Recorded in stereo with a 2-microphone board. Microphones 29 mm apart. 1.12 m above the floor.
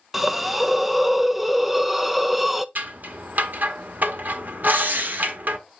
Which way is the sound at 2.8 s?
65° right (ahead or behind).